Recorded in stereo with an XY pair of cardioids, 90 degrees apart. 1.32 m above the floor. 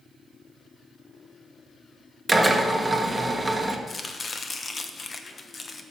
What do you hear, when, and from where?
2.3 s a drill: 10° right, 1.4 m
3.9 s chopping: 40° left, 1.1 m